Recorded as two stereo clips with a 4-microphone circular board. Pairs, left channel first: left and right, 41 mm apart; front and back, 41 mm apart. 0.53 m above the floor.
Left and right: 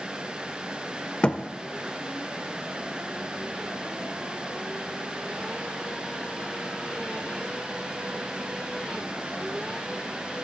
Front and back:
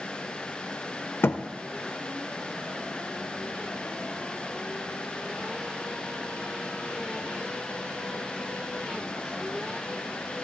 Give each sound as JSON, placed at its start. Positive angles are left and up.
{"t": 1.2, "sound": "a thud", "azimuth_deg": 30, "distance_m": 0.6}